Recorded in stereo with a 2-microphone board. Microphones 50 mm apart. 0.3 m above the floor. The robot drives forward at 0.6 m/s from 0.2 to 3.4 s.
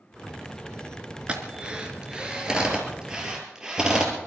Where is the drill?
20° right (ahead or behind), 1.8 m; by 4.1 s 15° right (ahead or behind), 3 m.